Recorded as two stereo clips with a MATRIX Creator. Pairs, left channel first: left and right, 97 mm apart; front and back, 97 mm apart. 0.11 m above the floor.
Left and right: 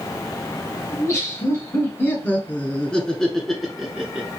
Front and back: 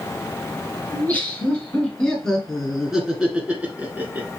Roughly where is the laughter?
Ahead left.